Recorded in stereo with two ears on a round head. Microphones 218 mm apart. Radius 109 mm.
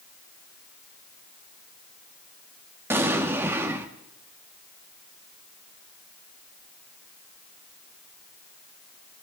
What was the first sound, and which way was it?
An explosion, 10° right (ahead or behind).